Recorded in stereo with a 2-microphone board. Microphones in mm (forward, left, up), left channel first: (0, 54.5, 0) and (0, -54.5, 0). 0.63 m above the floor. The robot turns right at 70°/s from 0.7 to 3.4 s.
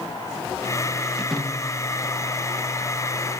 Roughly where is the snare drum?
Centre.